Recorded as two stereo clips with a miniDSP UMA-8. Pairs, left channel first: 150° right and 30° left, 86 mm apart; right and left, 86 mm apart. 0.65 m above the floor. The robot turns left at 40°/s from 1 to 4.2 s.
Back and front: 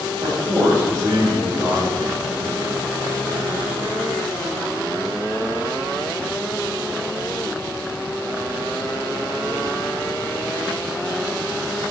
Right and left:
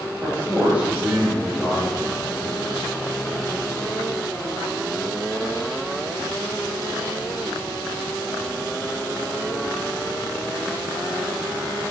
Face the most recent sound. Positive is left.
turn(degrees=-95)